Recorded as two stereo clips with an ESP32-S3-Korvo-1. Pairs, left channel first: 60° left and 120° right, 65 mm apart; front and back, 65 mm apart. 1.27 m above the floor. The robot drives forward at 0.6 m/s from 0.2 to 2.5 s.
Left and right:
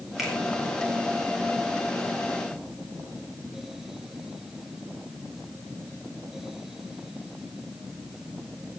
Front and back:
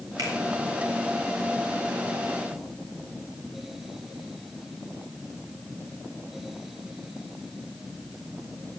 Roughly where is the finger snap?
Behind left.